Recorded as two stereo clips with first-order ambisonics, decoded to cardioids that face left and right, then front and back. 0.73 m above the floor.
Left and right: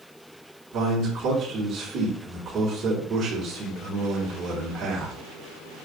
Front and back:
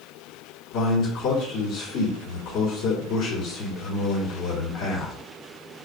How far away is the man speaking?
About 1.5 m.